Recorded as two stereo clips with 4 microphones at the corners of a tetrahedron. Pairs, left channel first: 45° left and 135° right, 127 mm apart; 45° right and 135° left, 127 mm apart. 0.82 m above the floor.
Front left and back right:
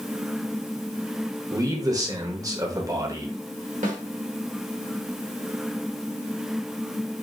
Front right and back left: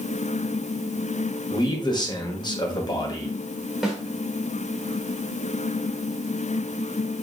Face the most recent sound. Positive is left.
turn(degrees=-135)